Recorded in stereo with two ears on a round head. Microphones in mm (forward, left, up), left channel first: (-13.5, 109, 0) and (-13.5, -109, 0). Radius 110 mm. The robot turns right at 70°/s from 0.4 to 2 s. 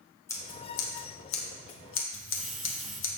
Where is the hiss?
Centre (ahead or behind), 1.6 m.